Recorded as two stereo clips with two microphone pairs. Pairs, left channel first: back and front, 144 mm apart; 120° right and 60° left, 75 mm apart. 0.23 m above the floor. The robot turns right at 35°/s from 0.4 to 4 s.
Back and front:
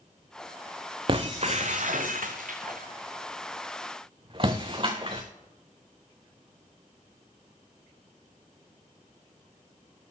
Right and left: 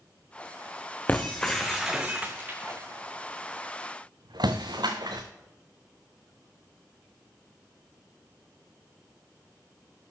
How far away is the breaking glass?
About 2 m.